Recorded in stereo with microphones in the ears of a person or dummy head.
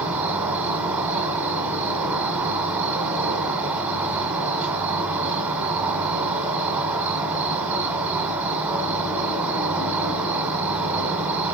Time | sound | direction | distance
0.0 | an insect | 10° right (ahead or behind) | 1.4 m